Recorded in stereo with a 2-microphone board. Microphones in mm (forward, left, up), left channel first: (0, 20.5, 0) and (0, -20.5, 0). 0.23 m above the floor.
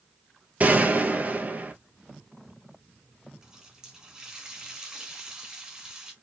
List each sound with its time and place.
0.6 s a gunshot: 40° right (ahead or behind), 1.3 m
3.4 s a running tap: 15° right (ahead or behind), 1.7 m